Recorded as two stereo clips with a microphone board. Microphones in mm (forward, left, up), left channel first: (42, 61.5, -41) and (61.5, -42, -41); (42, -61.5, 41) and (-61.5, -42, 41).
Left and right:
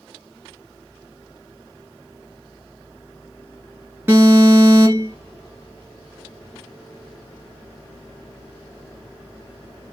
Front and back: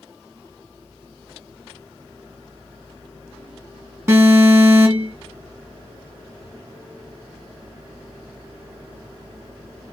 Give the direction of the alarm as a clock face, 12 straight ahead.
4 o'clock.